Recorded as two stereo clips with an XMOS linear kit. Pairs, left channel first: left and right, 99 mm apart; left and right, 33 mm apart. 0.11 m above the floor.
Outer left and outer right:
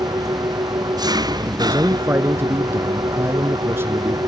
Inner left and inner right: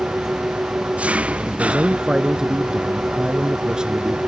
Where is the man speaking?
25° right (ahead or behind).